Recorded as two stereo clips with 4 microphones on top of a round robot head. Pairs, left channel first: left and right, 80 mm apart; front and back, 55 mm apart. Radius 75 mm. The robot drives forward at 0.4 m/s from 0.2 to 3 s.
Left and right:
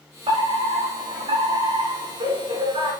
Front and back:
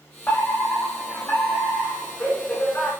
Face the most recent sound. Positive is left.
turn(degrees=-80)